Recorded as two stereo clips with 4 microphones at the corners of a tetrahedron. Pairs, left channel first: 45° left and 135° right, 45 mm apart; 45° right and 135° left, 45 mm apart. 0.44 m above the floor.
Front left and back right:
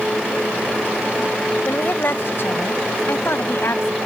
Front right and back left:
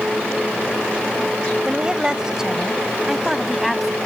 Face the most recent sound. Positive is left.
turn(degrees=45)